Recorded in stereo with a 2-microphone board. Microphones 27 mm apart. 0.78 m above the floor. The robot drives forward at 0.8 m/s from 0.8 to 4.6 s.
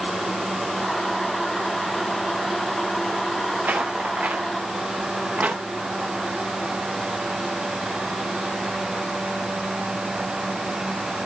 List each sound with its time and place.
3.6 s footsteps: 80° right, 4 m; by 5.6 s 70° right (ahead or behind), 4 m